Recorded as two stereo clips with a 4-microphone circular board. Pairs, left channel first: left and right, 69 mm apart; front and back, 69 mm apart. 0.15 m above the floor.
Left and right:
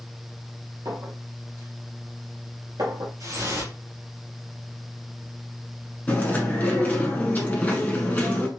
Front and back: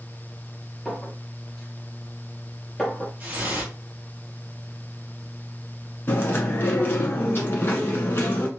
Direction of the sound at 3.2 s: 115° right.